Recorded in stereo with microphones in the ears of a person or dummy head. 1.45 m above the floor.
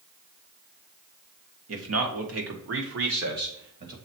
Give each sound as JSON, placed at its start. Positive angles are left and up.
{"t": 1.7, "sound": "a man speaking", "side_deg": -80, "distance_m": 1.8}